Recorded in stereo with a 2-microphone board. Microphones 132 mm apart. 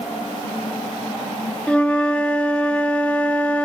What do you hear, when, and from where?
1.7 s a flute: 10° left (ahead or behind), 2.5 m